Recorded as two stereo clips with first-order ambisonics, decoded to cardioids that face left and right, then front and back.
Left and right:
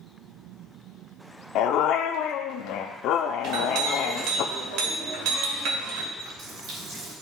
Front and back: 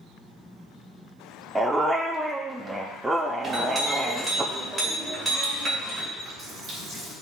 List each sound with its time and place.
1.6 s a dog barking: 100° left, 0.7 m
3.4 s a clink: 105° right, 2 m
6.2 s a running tap: 120° right, 3.5 m